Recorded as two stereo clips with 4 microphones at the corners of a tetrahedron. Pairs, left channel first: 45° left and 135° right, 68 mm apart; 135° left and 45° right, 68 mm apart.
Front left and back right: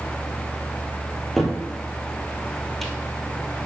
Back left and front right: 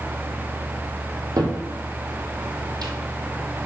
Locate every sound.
1.4 s a cupboard door: 40° right, 1.4 m